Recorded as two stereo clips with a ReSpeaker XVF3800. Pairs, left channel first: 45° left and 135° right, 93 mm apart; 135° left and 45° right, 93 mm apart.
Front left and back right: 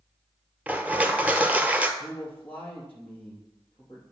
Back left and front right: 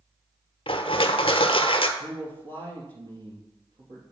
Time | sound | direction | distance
0.7 | crushing | 150° left | 0.8 m
2.0 | a man speaking | 25° right | 3 m